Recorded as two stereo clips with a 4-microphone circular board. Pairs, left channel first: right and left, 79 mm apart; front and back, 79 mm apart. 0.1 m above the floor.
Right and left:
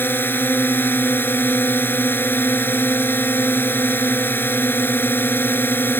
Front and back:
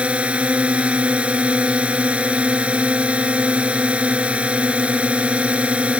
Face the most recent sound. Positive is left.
turn(degrees=-120)